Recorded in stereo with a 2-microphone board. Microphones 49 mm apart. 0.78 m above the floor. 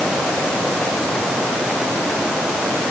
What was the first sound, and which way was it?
Only background noise.